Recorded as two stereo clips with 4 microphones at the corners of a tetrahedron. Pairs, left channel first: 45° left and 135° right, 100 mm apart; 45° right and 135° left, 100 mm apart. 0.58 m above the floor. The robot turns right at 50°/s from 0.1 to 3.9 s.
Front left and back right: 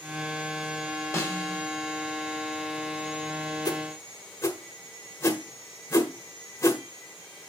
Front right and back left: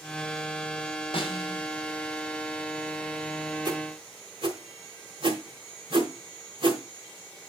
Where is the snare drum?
20° right, 1.8 m; by 1.6 s 5° left, 1.8 m.